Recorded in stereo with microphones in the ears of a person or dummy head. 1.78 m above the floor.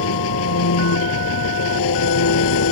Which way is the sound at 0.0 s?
75° left (ahead or behind).